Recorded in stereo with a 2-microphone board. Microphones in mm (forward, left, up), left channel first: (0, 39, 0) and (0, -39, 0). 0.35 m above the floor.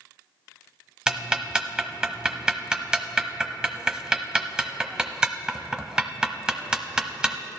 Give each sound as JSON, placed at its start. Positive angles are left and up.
{"t": 1.1, "sound": "ticking", "side_deg": -15, "distance_m": 0.7}